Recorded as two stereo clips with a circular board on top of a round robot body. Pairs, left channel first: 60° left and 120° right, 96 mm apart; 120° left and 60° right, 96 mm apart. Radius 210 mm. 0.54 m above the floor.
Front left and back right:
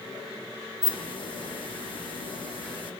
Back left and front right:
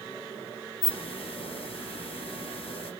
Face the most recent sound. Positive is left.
turn(degrees=95)